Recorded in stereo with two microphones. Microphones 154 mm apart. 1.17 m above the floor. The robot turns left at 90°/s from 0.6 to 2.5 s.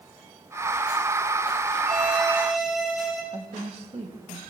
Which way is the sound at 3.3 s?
45° right (ahead or behind).